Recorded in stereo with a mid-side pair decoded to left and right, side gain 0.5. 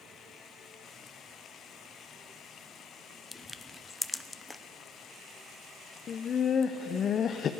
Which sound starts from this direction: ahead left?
Laughter, at 6.1 s.